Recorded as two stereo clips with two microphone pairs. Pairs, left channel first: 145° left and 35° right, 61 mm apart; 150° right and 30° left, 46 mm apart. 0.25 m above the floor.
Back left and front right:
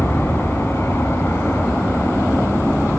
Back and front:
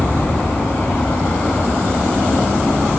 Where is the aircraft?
175° left; by 3.0 s straight behind.